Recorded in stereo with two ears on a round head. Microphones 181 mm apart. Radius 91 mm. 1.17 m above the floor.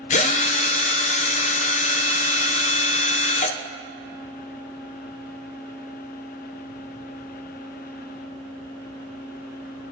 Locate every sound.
0.1 s a drill: 35° left (ahead or behind), 0.5 m